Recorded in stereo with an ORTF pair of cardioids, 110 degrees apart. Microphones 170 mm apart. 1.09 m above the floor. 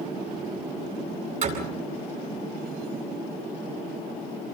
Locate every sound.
1.4 s a door slam: 45° right, 9 m